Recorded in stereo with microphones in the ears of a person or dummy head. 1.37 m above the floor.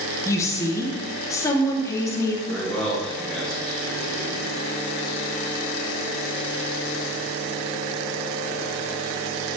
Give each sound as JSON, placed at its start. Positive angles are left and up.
{"t": 0.2, "sound": "a woman speaking", "side_deg": 15, "distance_m": 1.1}
{"t": 2.5, "sound": "a man speaking", "side_deg": 5, "distance_m": 3.0}